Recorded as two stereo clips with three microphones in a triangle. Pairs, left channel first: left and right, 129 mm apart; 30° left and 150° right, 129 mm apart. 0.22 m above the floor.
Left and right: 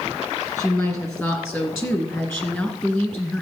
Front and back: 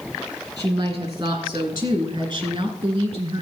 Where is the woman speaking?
155° left, 3.5 m; by 3.4 s 165° left, 2 m.